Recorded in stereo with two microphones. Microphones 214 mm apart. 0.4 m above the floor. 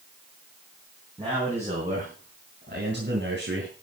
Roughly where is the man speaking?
Right.